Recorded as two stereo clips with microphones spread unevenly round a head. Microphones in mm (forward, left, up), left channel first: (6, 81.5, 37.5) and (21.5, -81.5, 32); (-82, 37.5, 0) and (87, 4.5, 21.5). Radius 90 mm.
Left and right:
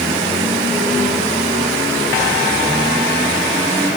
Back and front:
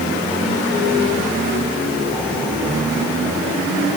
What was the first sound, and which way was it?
Only background noise.